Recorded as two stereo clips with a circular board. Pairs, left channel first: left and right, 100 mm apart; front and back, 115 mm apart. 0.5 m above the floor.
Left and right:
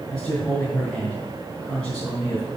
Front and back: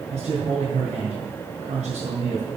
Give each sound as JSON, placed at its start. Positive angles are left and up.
{"t": 0.1, "sound": "a man speaking", "azimuth_deg": 175, "distance_m": 3.5}